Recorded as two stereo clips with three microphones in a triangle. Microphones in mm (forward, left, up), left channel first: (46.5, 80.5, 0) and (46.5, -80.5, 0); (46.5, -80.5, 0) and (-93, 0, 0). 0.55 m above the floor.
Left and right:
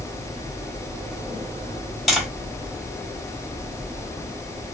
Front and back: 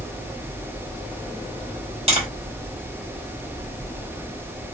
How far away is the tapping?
About 1.3 m.